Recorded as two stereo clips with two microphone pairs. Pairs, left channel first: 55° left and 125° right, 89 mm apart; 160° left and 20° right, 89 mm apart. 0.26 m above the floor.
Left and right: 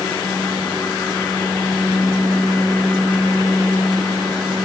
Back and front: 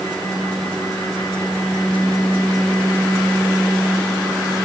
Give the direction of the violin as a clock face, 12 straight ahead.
I don't hear a violin.